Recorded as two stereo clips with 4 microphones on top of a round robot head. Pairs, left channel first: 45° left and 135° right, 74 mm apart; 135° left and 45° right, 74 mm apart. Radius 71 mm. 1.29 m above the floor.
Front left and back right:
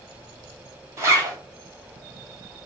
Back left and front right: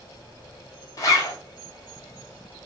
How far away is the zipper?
About 0.9 m.